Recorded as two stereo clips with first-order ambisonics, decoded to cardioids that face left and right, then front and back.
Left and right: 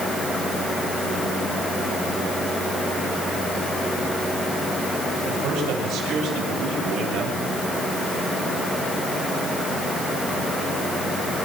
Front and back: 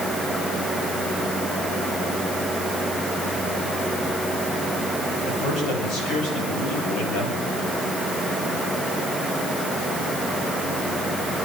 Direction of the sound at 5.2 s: 50° right.